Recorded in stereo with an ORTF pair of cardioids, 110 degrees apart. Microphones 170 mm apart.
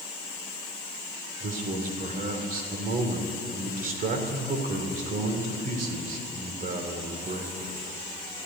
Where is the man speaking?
55° right, 3 m.